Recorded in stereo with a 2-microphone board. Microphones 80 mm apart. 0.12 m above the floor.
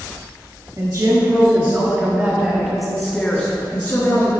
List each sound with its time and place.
0.8 s a woman speaking: 45° right (ahead or behind), 1.8 m; by 4.3 s 30° left (ahead or behind), 1.7 m